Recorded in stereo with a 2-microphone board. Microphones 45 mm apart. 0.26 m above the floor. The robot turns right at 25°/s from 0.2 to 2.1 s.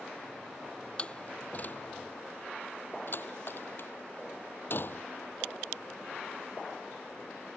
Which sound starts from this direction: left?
A door slam, at 1.0 s.